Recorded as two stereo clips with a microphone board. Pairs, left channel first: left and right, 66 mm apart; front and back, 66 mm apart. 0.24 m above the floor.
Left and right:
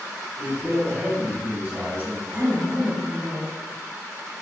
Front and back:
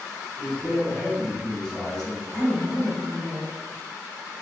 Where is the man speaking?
85° right, 1.7 m.